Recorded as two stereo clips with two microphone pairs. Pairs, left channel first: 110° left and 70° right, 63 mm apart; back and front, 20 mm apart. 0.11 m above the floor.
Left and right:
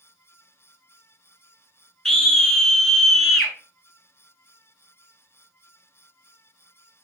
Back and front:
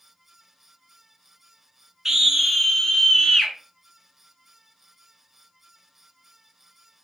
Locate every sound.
2.0 s a scream: 35° left, 1.1 m; by 3.5 s 170° right, 1.3 m